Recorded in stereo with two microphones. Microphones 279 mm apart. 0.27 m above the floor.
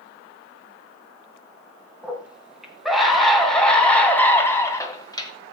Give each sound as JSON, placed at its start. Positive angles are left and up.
{"t": 2.0, "sound": "a scream", "side_deg": -5, "distance_m": 3.0}